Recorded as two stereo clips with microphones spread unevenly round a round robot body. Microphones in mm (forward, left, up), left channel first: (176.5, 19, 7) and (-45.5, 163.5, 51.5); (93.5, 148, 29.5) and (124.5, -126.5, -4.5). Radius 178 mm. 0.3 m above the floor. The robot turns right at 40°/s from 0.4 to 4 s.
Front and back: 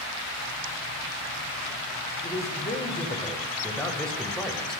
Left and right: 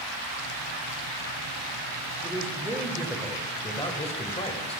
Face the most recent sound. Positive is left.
turn(degrees=35)